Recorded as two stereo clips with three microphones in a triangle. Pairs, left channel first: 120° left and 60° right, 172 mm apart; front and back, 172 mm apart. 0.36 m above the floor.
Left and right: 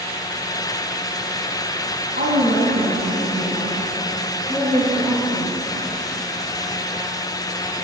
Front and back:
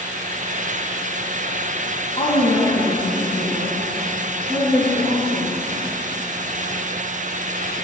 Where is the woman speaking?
50° right, 3.5 m; by 5.6 s 80° right, 7 m.